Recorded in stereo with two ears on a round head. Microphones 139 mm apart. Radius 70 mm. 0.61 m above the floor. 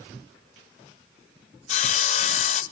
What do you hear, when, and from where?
1.7 s sawing: 40° left (ahead or behind), 0.6 m